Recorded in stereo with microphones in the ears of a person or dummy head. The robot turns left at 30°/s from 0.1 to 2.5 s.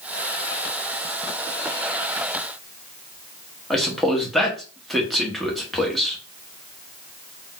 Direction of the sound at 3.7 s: Centre (ahead or behind).